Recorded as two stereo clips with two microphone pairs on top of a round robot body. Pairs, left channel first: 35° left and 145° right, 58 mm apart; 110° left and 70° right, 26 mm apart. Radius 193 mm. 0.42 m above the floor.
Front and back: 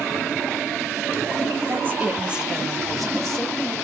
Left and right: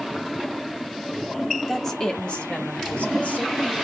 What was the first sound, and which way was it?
A woman speaking, 170° right.